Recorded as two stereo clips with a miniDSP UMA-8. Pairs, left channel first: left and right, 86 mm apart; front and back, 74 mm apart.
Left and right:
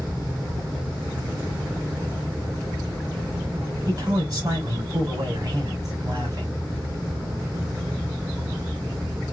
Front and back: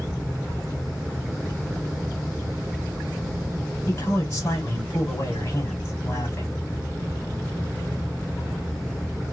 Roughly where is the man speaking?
Ahead right.